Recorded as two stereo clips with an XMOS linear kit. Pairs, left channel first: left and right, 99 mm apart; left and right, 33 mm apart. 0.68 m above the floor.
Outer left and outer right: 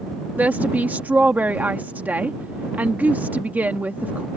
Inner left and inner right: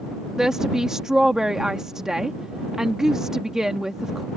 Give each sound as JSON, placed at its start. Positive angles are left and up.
{"t": 0.4, "sound": "a woman speaking", "side_deg": -15}